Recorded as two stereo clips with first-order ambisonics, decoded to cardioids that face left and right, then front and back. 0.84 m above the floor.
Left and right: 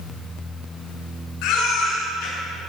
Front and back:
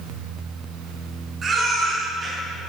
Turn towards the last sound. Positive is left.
turn(degrees=115)